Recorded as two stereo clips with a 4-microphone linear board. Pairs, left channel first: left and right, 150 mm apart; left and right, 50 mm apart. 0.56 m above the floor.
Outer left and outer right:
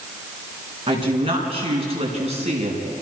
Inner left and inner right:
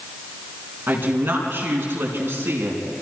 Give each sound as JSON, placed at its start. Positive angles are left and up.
{"t": 0.9, "sound": "a woman speaking", "side_deg": -35, "distance_m": 6.5}